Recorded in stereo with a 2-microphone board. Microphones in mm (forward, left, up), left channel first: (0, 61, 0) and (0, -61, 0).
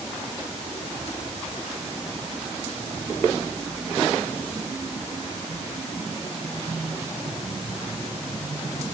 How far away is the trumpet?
No trumpet in this recording.